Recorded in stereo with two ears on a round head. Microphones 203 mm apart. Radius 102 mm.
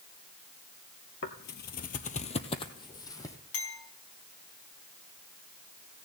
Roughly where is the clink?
Left.